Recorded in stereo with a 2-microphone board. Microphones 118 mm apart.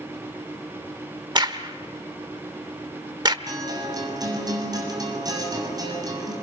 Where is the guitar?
35° right (ahead or behind), 7 m.